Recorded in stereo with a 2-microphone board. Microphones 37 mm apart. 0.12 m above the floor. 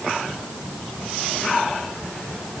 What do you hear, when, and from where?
Only background noise.